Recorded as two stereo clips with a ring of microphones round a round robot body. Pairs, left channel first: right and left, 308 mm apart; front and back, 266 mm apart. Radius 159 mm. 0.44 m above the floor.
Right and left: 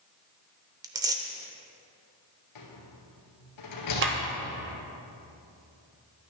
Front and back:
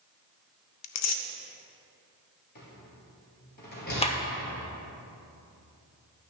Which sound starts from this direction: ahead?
Tearing paper, at 0.8 s.